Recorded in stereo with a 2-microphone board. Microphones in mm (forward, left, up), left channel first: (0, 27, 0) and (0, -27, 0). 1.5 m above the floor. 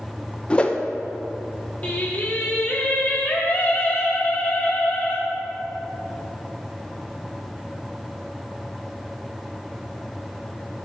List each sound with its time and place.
0.5 s a whoosh: 20° left (ahead or behind), 0.6 m
1.8 s singing: 30° left (ahead or behind), 1.6 m